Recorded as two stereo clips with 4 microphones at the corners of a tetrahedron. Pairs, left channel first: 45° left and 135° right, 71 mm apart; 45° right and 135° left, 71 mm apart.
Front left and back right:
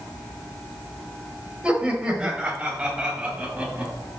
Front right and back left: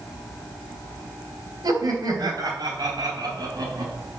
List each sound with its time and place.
1.6 s laughter: 150° left, 2.5 m